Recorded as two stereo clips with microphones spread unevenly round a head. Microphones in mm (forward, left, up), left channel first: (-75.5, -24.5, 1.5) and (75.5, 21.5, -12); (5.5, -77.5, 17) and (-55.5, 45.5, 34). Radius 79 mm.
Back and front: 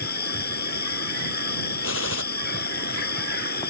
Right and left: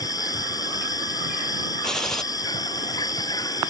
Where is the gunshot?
150° right.